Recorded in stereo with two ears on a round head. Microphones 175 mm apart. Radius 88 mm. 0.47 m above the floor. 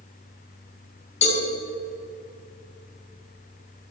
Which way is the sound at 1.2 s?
35° left (ahead or behind).